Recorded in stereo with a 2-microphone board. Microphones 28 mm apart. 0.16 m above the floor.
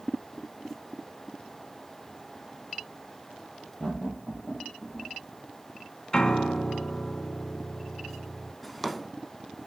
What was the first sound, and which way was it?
Laughter, 20° left (ahead or behind).